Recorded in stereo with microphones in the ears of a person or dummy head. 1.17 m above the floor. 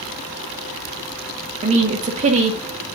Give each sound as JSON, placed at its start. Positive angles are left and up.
{"t": 1.6, "sound": "a woman speaking", "side_deg": -35, "distance_m": 1.3}